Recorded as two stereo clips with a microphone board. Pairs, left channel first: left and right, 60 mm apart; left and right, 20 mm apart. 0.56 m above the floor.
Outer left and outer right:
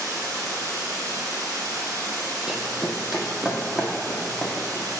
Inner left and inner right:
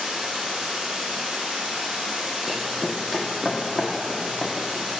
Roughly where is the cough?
No cough in this recording.